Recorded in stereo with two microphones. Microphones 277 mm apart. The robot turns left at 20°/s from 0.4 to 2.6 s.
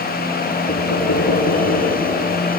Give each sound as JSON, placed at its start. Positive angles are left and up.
{"t": 0.7, "sound": "knocking", "azimuth_deg": 90, "distance_m": 5.5}